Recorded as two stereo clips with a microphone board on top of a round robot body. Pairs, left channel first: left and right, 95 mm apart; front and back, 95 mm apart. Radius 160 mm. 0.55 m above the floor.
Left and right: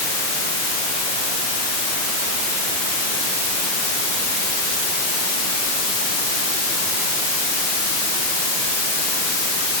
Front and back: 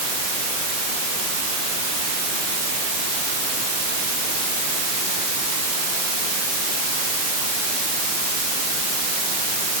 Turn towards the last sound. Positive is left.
No sound to turn to.